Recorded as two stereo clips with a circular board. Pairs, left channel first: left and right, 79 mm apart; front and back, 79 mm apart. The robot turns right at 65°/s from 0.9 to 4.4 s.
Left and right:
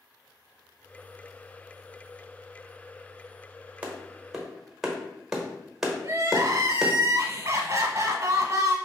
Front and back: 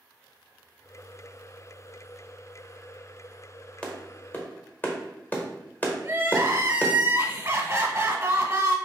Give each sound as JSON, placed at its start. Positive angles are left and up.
{"t": 3.8, "sound": "a clap", "azimuth_deg": -50, "distance_m": 1.1}
{"t": 6.0, "sound": "crying", "azimuth_deg": -130, "distance_m": 1.1}